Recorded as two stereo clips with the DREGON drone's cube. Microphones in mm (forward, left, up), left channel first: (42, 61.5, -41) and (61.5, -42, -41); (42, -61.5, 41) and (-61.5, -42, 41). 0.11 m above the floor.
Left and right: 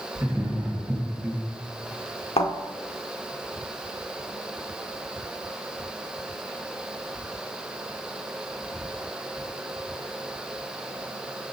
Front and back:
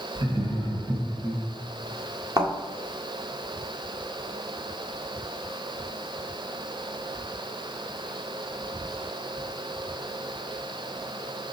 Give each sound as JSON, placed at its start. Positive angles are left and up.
{"t": 0.1, "sound": "laughter", "azimuth_deg": -155, "distance_m": 3.0}
{"t": 2.4, "sound": "a thud", "azimuth_deg": 115, "distance_m": 1.8}